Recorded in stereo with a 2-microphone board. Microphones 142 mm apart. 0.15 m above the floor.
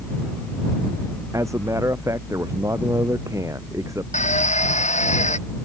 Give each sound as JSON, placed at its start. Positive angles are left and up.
{"t": 1.3, "sound": "a man speaking", "side_deg": -20}
{"t": 4.1, "sound": "a drill", "side_deg": 55}